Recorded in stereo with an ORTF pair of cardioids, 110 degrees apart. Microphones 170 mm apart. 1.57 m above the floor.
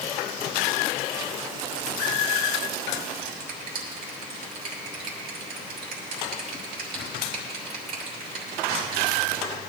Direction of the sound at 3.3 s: 60° right.